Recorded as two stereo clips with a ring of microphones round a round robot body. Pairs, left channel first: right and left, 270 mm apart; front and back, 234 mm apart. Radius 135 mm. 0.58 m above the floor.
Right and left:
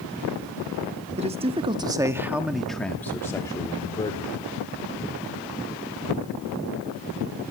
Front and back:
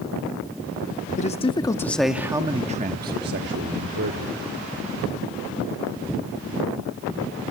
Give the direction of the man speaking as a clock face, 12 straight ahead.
11 o'clock.